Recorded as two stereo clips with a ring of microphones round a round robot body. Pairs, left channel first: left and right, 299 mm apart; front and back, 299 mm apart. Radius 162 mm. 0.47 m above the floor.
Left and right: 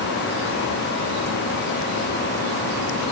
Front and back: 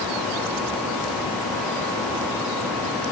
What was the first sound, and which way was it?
Only background noise.